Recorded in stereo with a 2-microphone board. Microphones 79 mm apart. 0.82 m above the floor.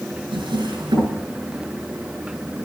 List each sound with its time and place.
0.3 s a drawer: 85° right, 6.5 m